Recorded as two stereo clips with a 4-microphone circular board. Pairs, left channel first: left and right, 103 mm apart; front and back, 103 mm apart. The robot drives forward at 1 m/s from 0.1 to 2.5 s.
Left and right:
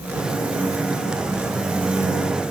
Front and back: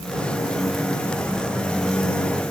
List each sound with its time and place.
Only background noise.